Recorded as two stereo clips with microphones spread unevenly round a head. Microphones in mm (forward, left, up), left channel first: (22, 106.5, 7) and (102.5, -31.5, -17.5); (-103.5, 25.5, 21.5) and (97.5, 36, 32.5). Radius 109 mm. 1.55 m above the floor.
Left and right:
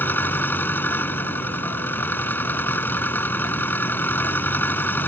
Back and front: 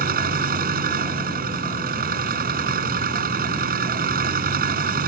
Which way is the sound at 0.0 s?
45° left.